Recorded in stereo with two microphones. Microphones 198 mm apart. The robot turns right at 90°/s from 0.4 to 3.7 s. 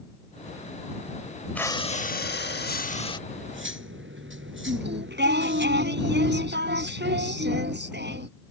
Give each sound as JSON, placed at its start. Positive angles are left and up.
{"t": 1.6, "sound": "breathing", "azimuth_deg": 10}
{"t": 3.3, "sound": "cutlery clinking", "azimuth_deg": -120}
{"t": 4.7, "sound": "singing", "side_deg": -65}